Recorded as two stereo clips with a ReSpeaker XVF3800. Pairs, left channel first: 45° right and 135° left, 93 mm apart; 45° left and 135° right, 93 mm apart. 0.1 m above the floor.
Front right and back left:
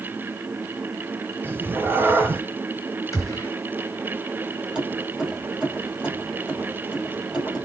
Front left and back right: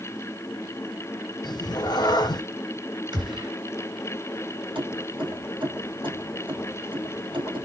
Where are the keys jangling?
145° right, 2 m.